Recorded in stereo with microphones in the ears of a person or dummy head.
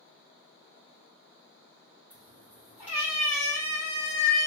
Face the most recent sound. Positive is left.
turn(degrees=45)  # may be behind; listen again after turning